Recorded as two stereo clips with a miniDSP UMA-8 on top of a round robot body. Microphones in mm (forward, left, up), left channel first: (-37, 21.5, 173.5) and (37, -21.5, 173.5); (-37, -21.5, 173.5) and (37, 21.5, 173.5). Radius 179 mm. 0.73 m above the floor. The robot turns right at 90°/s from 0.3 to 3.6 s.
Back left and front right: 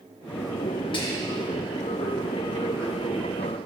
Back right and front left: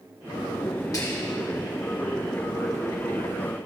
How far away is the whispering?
About 1.8 m.